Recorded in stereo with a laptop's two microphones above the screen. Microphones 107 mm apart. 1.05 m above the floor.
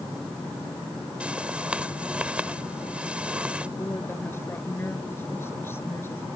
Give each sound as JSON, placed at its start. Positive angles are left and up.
{"t": 1.2, "sound": "a whoosh", "side_deg": -10}
{"t": 3.8, "sound": "a woman speaking", "side_deg": 25}